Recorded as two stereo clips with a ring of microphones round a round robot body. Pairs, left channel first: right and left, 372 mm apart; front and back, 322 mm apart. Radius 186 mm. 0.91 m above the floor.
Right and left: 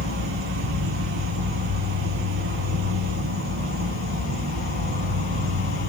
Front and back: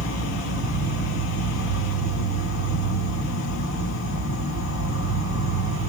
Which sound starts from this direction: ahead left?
An insect, at 0.0 s.